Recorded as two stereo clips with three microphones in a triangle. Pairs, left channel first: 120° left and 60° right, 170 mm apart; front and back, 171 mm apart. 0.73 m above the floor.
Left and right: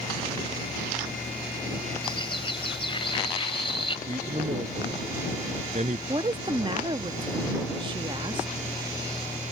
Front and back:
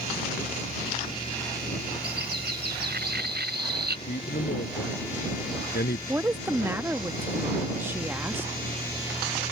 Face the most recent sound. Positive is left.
turn(degrees=-105)